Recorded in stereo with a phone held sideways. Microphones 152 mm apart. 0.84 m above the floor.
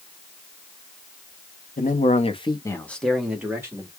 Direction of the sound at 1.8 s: 60° left (ahead or behind).